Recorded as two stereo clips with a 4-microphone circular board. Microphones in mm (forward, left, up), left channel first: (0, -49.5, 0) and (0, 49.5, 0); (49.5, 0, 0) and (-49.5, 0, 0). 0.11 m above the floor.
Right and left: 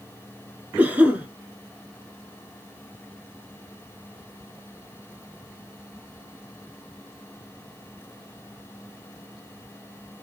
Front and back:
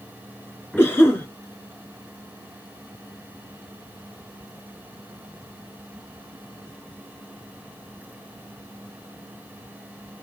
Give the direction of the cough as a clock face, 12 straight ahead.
11 o'clock.